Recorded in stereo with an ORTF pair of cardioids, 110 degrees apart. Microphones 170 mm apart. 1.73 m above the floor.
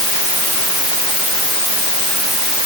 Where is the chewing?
No chewing in this recording.